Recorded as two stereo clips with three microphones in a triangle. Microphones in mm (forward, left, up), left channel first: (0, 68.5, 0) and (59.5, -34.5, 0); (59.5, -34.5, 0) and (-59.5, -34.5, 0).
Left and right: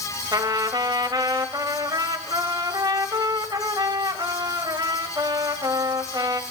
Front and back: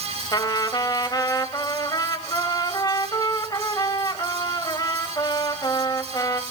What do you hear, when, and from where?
0.3 s a trumpet: 30° right, 1.3 m